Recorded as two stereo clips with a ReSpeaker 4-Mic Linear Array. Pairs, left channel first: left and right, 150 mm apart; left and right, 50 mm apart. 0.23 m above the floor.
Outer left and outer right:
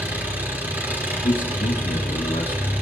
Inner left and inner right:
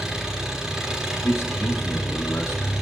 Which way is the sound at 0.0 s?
10° right (ahead or behind).